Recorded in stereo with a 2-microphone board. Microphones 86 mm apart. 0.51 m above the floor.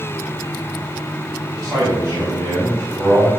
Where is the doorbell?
I don't hear a doorbell.